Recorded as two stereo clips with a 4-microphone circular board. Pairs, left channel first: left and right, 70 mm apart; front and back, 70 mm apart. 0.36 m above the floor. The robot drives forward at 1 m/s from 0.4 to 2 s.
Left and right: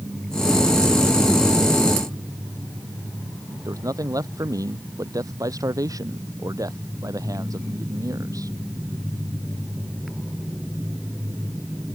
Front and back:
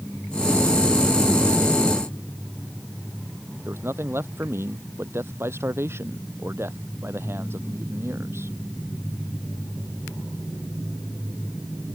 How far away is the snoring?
No snoring in this recording.